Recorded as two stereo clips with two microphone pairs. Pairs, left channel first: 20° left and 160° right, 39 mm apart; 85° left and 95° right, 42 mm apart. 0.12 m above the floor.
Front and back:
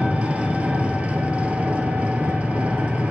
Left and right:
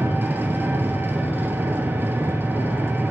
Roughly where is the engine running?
Behind right.